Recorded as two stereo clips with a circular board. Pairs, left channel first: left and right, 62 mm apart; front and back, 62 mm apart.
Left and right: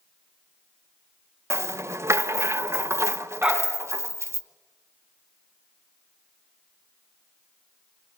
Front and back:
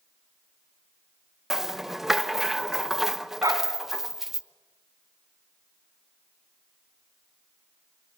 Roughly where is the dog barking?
Behind.